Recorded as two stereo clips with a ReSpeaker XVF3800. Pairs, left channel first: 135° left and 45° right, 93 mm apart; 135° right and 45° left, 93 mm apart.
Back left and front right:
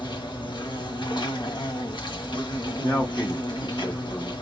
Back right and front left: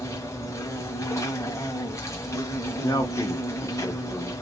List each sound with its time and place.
0.0 s an insect: 165° left, 1.2 m
2.8 s a man speaking: 165° right, 1.0 m